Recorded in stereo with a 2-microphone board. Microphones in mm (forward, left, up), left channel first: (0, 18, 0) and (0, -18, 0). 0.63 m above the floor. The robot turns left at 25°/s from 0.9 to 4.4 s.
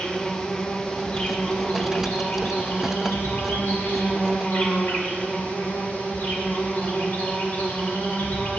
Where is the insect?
145° left, 2.0 m; by 8.6 s 60° left, 2.0 m.